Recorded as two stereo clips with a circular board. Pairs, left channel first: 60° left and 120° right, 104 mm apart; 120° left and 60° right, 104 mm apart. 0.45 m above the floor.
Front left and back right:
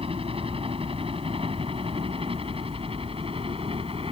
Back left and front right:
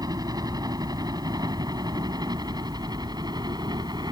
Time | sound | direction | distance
0.0 | a helicopter | 110° right | ?